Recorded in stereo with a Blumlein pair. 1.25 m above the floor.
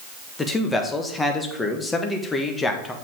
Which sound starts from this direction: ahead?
A man speaking, at 0.4 s.